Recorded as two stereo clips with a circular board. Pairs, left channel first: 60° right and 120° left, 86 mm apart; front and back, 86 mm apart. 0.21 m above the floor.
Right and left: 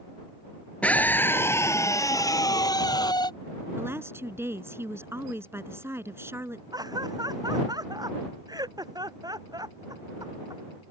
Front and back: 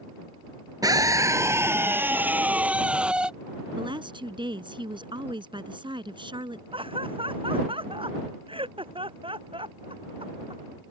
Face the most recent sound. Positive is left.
turn(degrees=165)